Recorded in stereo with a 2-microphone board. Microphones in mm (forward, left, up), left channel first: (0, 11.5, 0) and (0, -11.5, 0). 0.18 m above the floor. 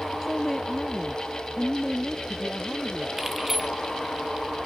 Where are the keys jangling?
5° right (ahead or behind).